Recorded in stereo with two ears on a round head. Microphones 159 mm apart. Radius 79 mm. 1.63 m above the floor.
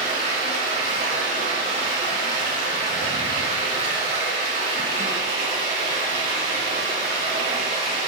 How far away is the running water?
About 4.5 m.